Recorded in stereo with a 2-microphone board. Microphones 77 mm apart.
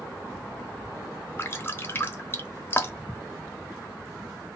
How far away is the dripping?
About 0.8 m.